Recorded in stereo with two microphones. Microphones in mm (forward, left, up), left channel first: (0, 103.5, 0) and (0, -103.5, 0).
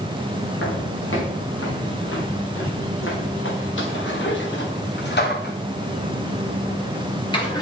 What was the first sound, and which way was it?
Footsteps, 80° left.